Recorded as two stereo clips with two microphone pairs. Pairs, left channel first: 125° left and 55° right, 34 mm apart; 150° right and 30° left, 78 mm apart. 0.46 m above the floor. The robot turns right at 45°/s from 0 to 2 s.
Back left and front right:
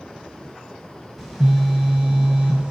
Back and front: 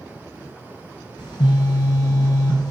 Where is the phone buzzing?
155° right, 0.7 m; by 2.7 s 120° right, 0.7 m.